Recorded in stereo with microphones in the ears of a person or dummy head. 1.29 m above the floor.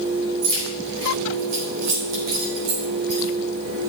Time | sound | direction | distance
0.4 | keys jangling | 55° right (ahead or behind) | 3.5 m